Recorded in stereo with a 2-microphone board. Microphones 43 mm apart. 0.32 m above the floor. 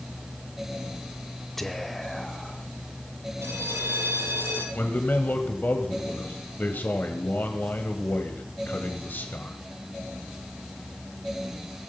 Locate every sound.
1.6 s whispering: 5° left (ahead or behind), 0.9 m
3.4 s a bell: 75° right (ahead or behind), 2.5 m
4.8 s a man speaking: 45° left (ahead or behind), 1.7 m